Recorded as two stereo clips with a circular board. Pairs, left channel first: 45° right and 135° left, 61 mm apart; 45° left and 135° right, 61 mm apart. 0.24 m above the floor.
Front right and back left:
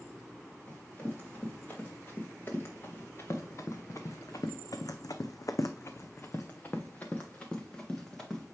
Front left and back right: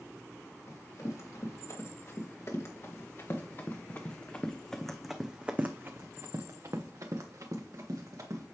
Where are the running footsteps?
20° left, 3 m; by 8.4 s 125° right, 2.5 m.